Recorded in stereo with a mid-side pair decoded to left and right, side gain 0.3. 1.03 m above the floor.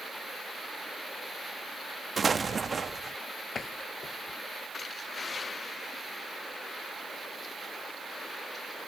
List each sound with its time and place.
2.2 s an explosion: 50° right
3.5 s a door slam: 60° left